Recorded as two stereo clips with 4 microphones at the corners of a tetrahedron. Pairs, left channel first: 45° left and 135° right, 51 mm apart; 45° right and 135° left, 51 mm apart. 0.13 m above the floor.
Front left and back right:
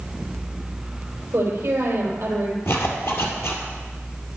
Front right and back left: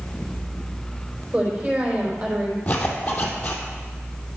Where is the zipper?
15° left, 2.5 m.